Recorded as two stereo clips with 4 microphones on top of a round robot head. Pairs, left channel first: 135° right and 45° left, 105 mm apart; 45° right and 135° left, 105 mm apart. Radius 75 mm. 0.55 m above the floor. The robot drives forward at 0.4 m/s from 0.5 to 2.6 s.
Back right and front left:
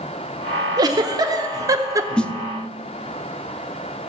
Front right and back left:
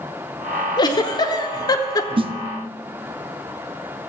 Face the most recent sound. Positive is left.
turn(degrees=155)